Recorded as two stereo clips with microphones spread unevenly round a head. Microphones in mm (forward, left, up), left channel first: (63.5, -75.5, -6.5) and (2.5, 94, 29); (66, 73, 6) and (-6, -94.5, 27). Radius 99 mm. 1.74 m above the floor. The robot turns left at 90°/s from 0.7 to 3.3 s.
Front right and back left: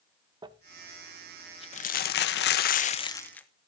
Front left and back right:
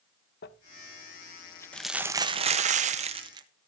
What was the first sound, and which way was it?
Crumpling, 70° left.